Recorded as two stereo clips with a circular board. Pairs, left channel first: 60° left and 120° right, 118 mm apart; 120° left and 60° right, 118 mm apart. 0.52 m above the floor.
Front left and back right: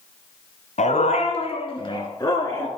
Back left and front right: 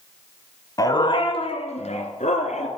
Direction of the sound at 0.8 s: 60° left.